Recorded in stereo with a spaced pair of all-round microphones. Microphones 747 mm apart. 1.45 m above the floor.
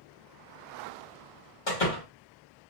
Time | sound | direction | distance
1.7 | a door slam | 75° left (ahead or behind) | 1.7 m